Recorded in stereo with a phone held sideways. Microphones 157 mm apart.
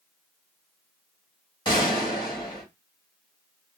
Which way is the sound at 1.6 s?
30° left (ahead or behind).